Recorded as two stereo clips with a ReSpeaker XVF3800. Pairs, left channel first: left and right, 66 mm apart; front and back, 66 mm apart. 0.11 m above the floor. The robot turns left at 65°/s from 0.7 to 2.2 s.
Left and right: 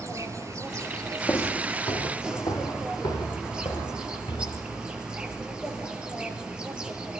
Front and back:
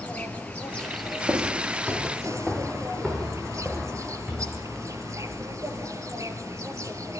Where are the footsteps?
140° left, 3.5 m; by 4.6 s 100° left, 6 m.